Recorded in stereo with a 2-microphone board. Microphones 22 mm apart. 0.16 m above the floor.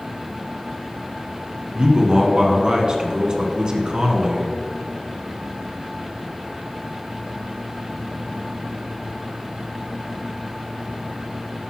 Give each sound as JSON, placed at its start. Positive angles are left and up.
{"t": 1.8, "sound": "a man speaking", "side_deg": -35, "distance_m": 1.4}